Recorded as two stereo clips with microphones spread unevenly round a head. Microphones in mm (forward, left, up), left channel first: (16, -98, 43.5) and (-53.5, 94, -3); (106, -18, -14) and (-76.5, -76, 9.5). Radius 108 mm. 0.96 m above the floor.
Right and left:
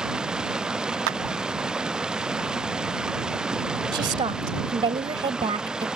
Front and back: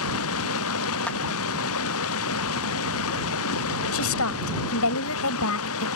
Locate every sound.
0.0 s running water: 20° left
1.1 s a clap: 100° left
3.9 s a woman speaking: 40° left